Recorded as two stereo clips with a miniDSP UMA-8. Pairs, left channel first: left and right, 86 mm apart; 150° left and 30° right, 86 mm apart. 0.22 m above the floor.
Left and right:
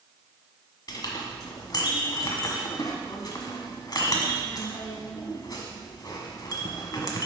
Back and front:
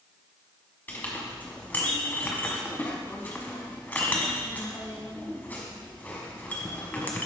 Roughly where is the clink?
Left.